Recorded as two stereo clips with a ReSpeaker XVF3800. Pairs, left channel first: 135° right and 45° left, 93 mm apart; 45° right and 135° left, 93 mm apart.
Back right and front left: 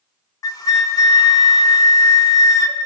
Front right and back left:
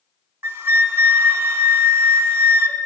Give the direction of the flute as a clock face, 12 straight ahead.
6 o'clock.